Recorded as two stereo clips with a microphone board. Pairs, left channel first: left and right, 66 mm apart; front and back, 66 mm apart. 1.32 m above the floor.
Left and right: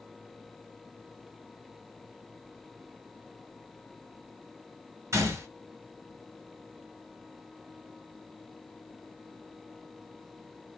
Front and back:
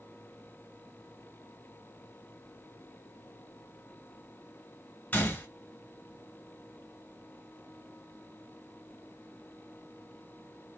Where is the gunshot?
60° right, 1.7 m.